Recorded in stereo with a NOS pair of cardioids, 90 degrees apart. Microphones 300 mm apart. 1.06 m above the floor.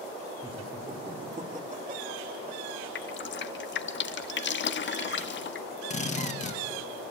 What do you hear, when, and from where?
0.4 s laughter: 20° right, 3.5 m; by 2.8 s 40° right, 3 m
3.0 s dripping: 40° left, 1.1 m
5.9 s a drill: 25° left, 2 m